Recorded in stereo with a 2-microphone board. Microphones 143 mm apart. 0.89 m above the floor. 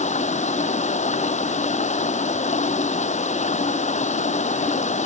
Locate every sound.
0.0 s running water: 55° left (ahead or behind)